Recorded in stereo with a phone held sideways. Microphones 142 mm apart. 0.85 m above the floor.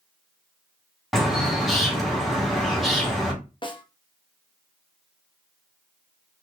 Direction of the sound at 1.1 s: Centre (ahead or behind).